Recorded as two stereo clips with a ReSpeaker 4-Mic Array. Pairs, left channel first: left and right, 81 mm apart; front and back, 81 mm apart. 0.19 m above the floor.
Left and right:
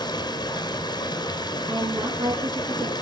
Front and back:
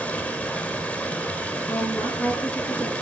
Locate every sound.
0.0 s running water: 75° left, 2 m
1.7 s a woman speaking: 70° right, 4 m